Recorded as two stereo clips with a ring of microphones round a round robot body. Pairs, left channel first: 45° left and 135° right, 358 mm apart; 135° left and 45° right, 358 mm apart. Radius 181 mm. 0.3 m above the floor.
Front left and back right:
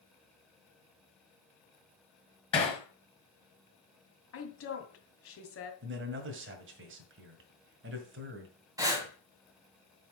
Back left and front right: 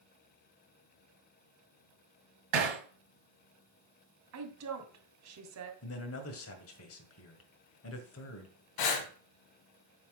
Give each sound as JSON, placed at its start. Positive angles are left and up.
{"t": 2.5, "sound": "hammering", "azimuth_deg": -30, "distance_m": 4.5}
{"t": 4.3, "sound": "a woman speaking", "azimuth_deg": -5, "distance_m": 2.5}
{"t": 5.8, "sound": "a man speaking", "azimuth_deg": 175, "distance_m": 1.8}
{"t": 8.8, "sound": "breathing", "azimuth_deg": 145, "distance_m": 1.8}